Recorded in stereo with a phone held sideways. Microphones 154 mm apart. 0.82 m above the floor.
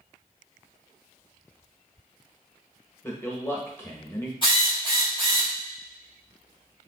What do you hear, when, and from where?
3.0 s a man speaking: 15° left (ahead or behind), 1.0 m
4.4 s a drill: 35° left (ahead or behind), 2 m